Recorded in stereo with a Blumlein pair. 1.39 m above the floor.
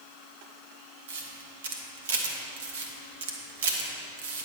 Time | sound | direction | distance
1.1 | a camera shutter | 60° right | 1.2 m